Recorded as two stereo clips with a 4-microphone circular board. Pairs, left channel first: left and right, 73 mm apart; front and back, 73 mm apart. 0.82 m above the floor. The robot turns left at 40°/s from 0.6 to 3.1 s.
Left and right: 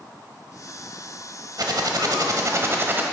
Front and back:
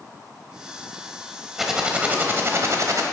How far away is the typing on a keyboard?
About 1.1 m.